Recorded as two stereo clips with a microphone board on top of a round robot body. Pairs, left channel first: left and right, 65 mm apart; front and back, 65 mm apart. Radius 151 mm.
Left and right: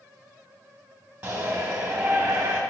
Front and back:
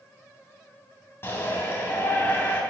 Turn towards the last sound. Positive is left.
turn(degrees=-25)